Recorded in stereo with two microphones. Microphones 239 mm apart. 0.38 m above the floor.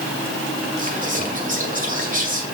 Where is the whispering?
35° right (ahead or behind), 1.8 m.